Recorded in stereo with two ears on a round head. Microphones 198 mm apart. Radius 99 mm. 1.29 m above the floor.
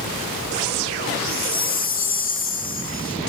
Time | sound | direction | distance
1.3 | a chime | 40° left (ahead or behind) | 3 m